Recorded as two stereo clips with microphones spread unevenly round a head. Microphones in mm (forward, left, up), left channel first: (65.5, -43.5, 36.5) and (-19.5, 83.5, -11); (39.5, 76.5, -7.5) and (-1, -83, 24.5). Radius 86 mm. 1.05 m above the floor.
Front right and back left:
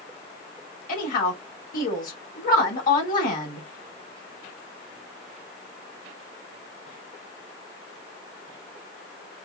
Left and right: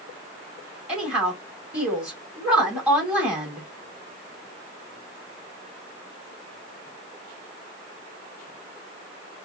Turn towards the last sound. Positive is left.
turn(degrees=-20)